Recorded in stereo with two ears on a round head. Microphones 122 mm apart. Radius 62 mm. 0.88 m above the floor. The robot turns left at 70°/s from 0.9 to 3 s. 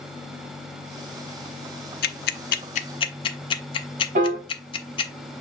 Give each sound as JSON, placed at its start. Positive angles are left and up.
{"t": 2.0, "sound": "ticking", "side_deg": 70, "distance_m": 0.5}
{"t": 4.2, "sound": "a piano", "side_deg": -50, "distance_m": 1.2}